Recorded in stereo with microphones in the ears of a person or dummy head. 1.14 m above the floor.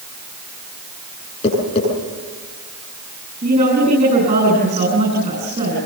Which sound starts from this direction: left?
Tapping, at 1.4 s.